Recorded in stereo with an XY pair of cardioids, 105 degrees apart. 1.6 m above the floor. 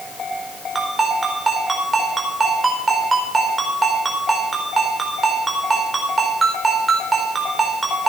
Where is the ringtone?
25° right, 4.5 m.